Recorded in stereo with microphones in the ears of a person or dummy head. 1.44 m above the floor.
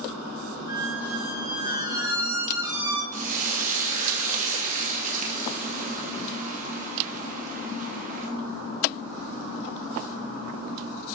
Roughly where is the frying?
Right.